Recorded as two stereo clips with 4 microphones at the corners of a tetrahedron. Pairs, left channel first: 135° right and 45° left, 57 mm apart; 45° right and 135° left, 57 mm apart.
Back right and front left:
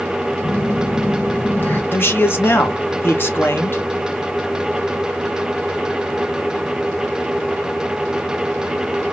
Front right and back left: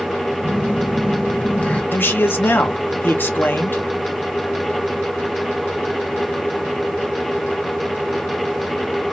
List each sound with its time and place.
0.4 s a phone buzzing: 105° right, 0.8 m
1.9 s a man speaking: 90° right, 0.7 m